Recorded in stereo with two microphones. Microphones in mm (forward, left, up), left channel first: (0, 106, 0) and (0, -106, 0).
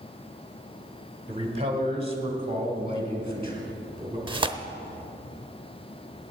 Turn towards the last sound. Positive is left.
turn(degrees=-25)  # may be behind; listen again after turning